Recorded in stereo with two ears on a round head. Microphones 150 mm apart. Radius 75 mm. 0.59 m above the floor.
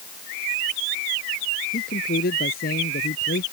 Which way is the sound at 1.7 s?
55° left (ahead or behind).